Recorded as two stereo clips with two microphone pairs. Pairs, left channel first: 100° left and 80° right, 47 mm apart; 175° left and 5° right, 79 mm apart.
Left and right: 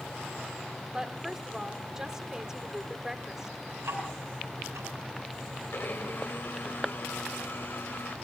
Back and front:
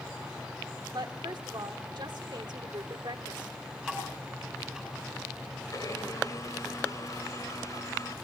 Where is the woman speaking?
5° right, 1.5 m.